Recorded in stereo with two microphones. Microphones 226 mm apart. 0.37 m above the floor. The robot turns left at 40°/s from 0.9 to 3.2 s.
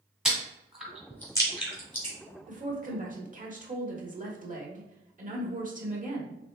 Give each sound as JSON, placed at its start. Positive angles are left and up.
{"t": 0.2, "sound": "chewing", "side_deg": -5, "distance_m": 1.6}
{"t": 2.5, "sound": "a woman speaking", "side_deg": -35, "distance_m": 1.1}